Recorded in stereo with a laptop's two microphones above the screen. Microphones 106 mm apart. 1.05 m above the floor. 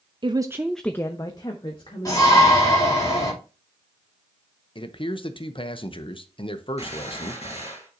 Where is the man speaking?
55° left (ahead or behind), 0.8 m.